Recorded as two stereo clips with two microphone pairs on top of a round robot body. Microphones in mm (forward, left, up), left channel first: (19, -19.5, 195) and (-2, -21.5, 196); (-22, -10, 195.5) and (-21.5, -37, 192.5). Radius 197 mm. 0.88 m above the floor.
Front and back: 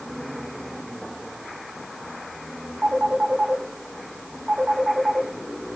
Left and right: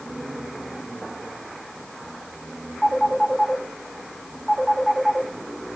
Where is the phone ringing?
175° left, 6 m.